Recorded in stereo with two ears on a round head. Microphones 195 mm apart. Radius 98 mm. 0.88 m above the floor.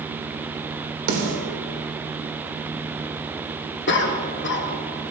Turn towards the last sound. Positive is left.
turn(degrees=50)  # may be behind; listen again after turning